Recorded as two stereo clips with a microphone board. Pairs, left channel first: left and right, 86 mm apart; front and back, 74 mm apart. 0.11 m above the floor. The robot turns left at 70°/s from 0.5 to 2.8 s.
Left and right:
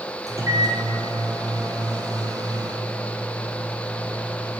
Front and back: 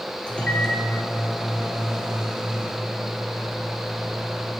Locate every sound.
0.3 s a microwave: 70° right, 1.5 m; by 4.6 s 130° left, 1.5 m